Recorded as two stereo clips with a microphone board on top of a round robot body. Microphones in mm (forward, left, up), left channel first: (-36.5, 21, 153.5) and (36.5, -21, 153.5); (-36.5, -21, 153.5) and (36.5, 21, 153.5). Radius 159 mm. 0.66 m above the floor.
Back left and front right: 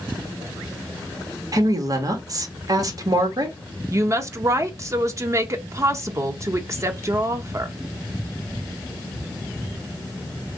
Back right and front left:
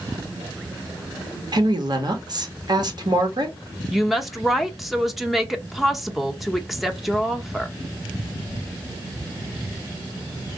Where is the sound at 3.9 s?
60° right, 0.7 m.